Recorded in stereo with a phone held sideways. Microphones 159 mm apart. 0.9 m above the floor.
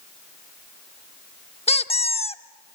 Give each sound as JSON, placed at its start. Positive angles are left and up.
{"t": 1.7, "sound": "a squeak", "side_deg": 40, "distance_m": 0.7}